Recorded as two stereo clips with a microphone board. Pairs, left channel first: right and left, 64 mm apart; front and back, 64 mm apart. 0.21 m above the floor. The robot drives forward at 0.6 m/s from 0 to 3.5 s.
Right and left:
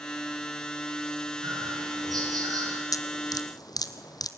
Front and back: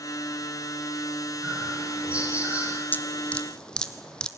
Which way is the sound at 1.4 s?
105° left.